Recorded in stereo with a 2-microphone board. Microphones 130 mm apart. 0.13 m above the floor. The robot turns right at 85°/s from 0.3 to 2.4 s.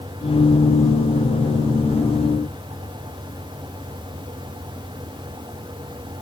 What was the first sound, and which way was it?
Only background noise.